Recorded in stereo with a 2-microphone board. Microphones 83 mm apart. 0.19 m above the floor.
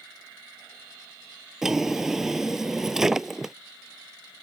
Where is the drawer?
5° right (ahead or behind).